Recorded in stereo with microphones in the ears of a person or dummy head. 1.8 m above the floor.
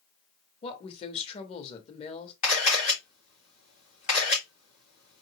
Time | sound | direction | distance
0.6 | a woman speaking | 30° left (ahead or behind) | 1.2 m
2.4 | a camera shutter | 45° left (ahead or behind) | 3 m